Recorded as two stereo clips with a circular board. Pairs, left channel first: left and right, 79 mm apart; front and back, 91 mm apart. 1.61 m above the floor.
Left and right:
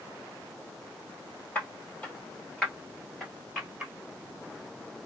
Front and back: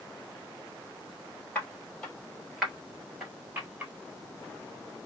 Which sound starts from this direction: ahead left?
Footsteps, at 1.6 s.